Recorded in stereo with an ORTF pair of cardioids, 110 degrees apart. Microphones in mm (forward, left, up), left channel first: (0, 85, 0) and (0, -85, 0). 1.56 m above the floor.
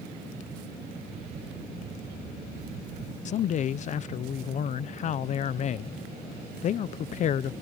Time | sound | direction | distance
1.1 | a camera shutter | 70° right | ?
3.2 | a man speaking | 45° left | ?